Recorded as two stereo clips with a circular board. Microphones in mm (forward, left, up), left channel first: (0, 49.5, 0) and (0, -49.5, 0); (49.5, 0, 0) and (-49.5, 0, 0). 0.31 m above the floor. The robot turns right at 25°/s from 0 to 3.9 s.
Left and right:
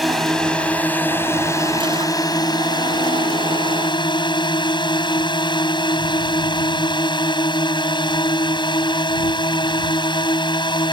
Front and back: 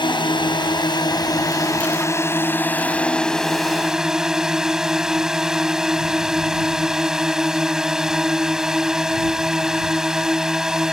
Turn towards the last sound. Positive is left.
turn(degrees=95)